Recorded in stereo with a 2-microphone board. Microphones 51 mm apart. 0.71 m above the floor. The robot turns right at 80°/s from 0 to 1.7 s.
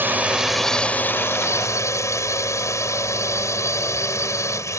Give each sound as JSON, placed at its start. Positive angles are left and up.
{"t": 0.0, "sound": "a drone", "azimuth_deg": -45}